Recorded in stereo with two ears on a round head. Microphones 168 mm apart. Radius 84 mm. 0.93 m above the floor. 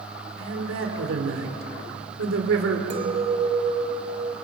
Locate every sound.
0.4 s a man speaking: 75° right (ahead or behind), 3.5 m
2.9 s a clink: 35° right (ahead or behind), 1.9 m